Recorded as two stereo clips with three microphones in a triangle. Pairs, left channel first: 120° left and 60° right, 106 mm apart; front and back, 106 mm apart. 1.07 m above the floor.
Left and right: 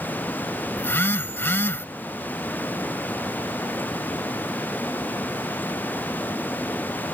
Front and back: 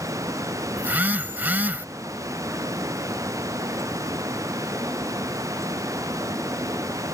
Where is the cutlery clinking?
No cutlery clinking in this recording.